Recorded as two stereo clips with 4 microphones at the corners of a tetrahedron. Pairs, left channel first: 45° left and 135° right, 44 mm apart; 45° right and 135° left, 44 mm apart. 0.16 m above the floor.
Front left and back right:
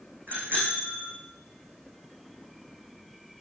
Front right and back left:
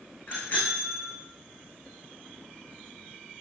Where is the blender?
No blender in this recording.